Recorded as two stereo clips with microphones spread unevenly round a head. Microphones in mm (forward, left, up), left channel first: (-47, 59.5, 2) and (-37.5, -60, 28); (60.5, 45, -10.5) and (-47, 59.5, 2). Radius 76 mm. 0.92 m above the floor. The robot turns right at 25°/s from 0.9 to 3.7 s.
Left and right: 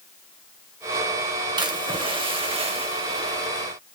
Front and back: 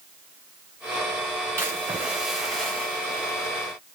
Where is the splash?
125° right, 1.0 m; by 3.7 s 70° right, 1.0 m.